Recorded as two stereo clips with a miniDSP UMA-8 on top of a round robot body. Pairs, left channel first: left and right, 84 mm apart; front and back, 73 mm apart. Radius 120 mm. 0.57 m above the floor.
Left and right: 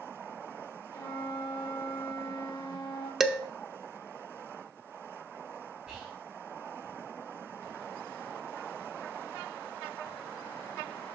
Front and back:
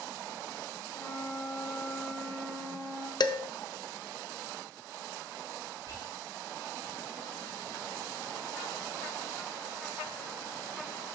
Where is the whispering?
170° right, 2 m.